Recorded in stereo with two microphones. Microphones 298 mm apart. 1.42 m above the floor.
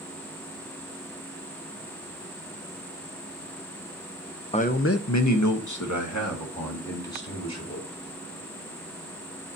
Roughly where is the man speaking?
Left.